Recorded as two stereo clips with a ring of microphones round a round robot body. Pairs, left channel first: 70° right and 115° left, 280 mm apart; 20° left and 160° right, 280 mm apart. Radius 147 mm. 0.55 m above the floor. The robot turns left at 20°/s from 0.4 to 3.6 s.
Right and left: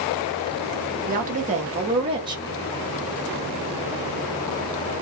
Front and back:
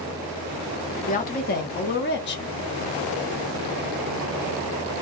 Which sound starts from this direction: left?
A woman speaking, at 1.1 s.